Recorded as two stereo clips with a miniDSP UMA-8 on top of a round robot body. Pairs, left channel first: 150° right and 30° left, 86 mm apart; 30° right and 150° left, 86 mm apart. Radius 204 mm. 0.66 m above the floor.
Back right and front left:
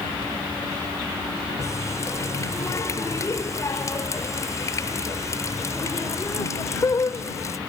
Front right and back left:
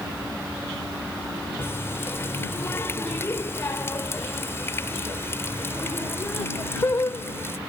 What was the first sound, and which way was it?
A running tap, 95° right.